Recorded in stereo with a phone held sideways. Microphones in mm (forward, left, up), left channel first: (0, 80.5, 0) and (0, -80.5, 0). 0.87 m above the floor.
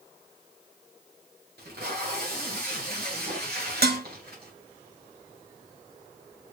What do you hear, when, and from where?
1.6 s tape being pulled: 80° right, 1.7 m
3.8 s dishes clattering: 80° right, 0.6 m